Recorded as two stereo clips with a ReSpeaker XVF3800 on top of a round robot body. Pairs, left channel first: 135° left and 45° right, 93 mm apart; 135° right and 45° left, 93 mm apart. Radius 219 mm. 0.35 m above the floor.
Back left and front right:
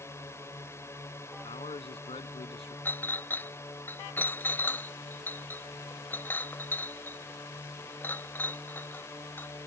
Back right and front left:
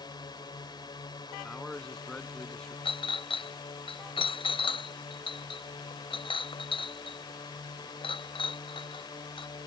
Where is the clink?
155° right.